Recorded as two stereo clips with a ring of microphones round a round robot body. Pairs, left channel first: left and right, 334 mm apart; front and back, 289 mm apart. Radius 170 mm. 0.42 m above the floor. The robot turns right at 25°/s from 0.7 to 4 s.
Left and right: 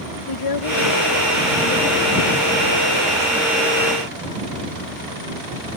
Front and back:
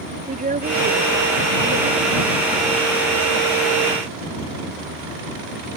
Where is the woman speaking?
115° left; by 3.6 s 170° right.